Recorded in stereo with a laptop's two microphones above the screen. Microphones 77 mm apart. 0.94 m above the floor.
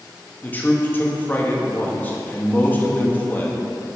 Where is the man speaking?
25° left (ahead or behind), 1.1 m.